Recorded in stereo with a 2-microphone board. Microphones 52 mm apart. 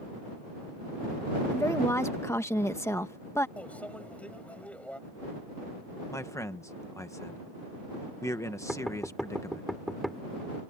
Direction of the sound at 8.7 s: 5° right (ahead or behind).